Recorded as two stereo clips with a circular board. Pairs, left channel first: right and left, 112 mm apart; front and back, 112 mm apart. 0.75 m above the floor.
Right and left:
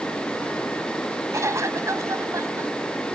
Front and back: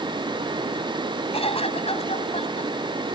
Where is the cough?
25° left.